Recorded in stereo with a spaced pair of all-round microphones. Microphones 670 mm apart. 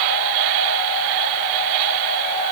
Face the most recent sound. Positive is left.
No sound to turn to.